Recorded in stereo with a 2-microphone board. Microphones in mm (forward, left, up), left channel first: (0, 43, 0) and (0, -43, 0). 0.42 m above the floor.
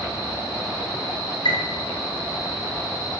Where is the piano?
65° left (ahead or behind), 1.9 m.